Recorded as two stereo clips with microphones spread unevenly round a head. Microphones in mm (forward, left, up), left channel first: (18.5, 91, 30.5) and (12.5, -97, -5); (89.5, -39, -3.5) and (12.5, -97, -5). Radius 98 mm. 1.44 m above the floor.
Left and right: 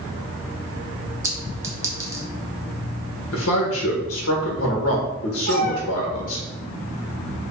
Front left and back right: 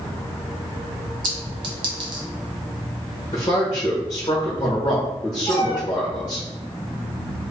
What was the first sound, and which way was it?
A clink, 175° right.